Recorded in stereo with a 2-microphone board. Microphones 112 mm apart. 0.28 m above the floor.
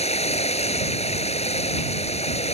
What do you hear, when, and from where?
0.0 s running water: 70° left (ahead or behind)